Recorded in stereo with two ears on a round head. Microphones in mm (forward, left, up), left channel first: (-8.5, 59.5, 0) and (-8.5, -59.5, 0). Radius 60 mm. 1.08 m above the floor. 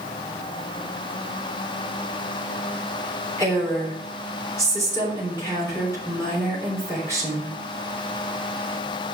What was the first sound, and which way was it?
A woman speaking, 20° left (ahead or behind).